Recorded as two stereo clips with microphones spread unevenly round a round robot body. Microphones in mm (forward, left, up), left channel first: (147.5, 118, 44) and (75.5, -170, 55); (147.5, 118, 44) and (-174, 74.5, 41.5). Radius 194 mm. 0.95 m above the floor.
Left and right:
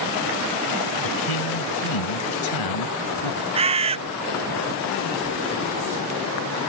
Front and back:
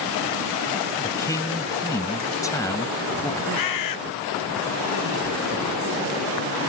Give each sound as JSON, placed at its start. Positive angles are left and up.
{"t": 1.0, "sound": "a man speaking", "azimuth_deg": 90}
{"t": 3.5, "sound": "a bird", "azimuth_deg": -30}